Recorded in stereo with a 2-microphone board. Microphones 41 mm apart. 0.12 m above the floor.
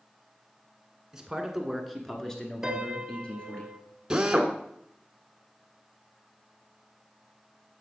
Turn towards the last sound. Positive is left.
turn(degrees=-15)  # may be behind; listen again after turning